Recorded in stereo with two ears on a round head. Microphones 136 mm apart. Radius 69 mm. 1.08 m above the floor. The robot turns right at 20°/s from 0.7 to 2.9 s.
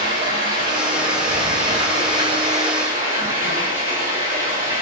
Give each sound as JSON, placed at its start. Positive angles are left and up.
{"t": 0.0, "sound": "running water", "azimuth_deg": -65, "distance_m": 1.3}